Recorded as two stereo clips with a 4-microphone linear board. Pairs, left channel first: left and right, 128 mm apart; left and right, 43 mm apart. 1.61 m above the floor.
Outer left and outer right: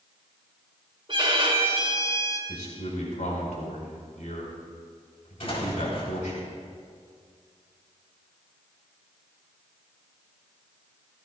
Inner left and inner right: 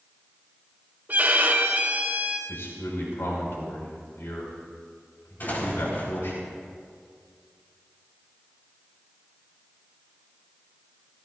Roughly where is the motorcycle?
No motorcycle in this recording.